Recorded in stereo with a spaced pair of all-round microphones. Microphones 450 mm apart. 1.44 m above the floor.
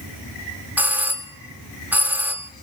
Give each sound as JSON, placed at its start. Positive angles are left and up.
{"t": 0.8, "sound": "a doorbell", "side_deg": -5, "distance_m": 1.2}